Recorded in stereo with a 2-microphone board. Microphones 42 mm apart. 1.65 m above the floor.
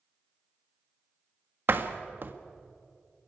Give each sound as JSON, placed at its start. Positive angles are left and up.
{"t": 1.7, "sound": "a door slam", "side_deg": -55, "distance_m": 1.6}